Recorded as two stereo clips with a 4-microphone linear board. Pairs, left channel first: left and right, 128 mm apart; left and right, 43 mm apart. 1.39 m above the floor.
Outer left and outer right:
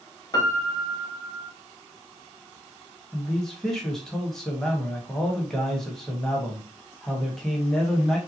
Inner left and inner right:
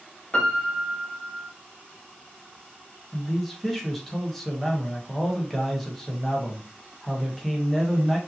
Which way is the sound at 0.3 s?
30° left (ahead or behind).